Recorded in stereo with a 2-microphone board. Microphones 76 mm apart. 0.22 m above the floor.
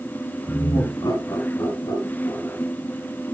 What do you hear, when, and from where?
0.5 s laughter: 45° left (ahead or behind), 1.4 m; by 2.6 s 50° left (ahead or behind), 3 m